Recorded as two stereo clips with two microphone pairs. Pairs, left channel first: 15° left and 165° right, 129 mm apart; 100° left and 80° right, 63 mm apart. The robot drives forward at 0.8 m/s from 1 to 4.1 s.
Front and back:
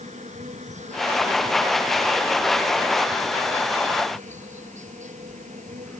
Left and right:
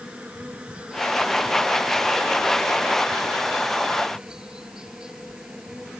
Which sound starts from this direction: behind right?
An insect, at 0.0 s.